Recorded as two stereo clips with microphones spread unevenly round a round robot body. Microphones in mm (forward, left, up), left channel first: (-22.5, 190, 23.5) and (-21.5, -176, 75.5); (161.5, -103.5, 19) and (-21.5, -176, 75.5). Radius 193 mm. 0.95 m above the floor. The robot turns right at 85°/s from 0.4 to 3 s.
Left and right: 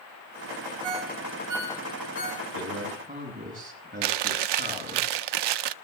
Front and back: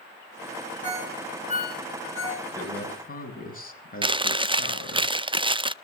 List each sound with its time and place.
0.8 s a ringtone: 95° right, 5 m; by 2.5 s 40° left, 5 m
2.5 s a man speaking: 55° right, 6.5 m; by 5.0 s 20° right, 6.5 m
4.0 s chewing: 80° right, 0.6 m